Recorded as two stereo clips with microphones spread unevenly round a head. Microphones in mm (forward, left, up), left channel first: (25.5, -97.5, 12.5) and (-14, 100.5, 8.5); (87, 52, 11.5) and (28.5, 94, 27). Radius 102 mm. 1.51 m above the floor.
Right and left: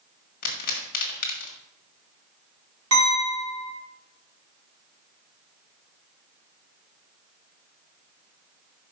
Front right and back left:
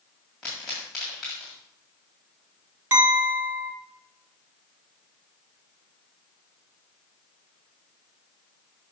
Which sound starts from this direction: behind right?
A pop, at 0.4 s.